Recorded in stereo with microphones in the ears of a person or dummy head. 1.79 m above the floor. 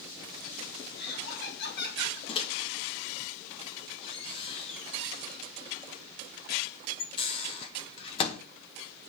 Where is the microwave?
30° left (ahead or behind), 1.4 m.